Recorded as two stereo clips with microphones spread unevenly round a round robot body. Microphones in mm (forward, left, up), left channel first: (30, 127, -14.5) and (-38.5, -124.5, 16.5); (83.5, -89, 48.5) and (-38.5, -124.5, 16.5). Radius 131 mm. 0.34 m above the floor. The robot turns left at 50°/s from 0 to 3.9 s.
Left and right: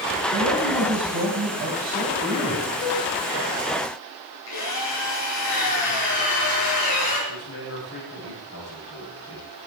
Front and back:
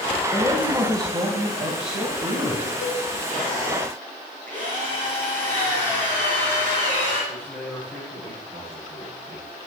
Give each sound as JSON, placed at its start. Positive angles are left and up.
{"t": 0.3, "sound": "a man speaking", "azimuth_deg": -85, "distance_m": 2.5}
{"t": 2.8, "sound": "a cowbell", "azimuth_deg": 25, "distance_m": 2.5}
{"t": 4.5, "sound": "a drill", "azimuth_deg": 100, "distance_m": 6.0}
{"t": 7.3, "sound": "a man speaking", "azimuth_deg": 110, "distance_m": 9.0}